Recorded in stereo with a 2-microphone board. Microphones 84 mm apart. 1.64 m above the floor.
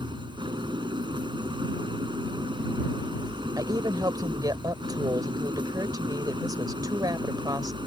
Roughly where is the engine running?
Right.